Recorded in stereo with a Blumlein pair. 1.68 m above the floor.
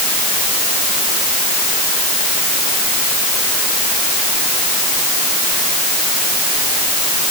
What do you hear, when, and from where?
Only background noise.